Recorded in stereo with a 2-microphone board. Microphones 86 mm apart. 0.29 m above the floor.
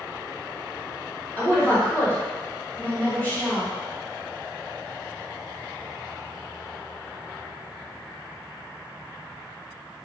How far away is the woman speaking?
About 1.6 m.